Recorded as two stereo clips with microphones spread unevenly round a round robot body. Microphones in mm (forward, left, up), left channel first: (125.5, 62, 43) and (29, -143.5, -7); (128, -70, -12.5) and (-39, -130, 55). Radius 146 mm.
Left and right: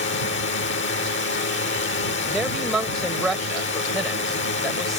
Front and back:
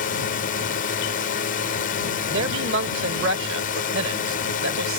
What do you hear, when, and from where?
0.0 s a drone: 30° left
2.3 s a man speaking: 155° left